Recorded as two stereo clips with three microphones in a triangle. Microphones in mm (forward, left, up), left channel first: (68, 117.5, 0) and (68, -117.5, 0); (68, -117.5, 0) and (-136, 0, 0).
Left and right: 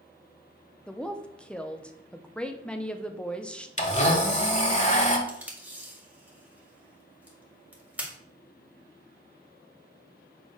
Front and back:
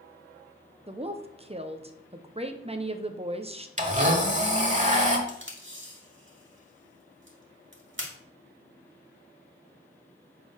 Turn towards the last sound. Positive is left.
turn(degrees=-175)